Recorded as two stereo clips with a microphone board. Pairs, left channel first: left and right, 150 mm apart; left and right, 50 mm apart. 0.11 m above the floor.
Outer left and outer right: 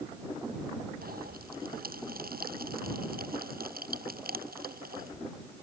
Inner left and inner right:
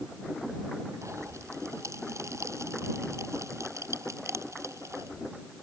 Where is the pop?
85° right.